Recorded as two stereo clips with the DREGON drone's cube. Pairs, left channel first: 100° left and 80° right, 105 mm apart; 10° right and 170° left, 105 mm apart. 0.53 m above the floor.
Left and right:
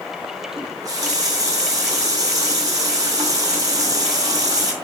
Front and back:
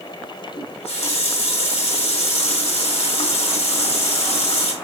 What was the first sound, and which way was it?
A running tap, 25° right.